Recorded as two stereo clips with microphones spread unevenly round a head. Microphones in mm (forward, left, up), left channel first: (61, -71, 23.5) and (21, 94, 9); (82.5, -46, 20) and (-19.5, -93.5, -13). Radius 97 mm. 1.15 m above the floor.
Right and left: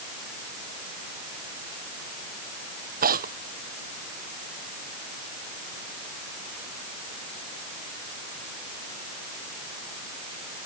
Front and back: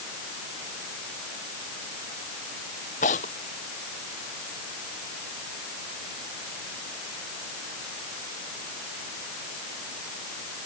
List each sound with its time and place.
3.0 s tearing paper: 65° left